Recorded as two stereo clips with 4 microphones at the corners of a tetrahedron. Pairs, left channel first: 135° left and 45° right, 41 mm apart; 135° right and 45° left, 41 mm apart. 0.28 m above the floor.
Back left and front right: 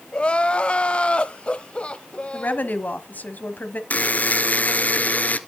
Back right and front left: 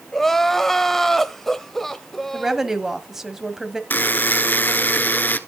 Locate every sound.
0.1 s crying: 150° left, 0.8 m
2.3 s a woman speaking: 120° left, 1.3 m
3.9 s a buzzer: 175° right, 0.7 m